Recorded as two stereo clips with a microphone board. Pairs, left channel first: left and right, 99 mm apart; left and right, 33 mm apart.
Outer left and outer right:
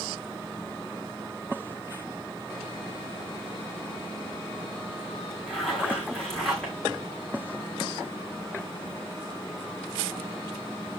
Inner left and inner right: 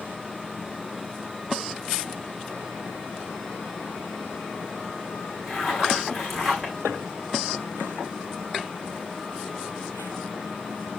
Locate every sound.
5.5 s a zipper: 5° left (ahead or behind), 6.5 m